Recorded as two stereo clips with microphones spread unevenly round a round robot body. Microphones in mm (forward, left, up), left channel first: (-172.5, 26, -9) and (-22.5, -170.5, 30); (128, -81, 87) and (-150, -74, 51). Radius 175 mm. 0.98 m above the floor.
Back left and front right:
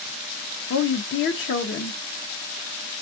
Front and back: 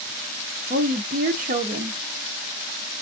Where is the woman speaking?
130° left, 0.7 m.